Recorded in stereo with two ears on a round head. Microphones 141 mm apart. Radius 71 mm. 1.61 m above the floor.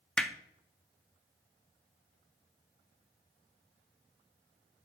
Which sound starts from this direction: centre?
Hammering, at 0.2 s.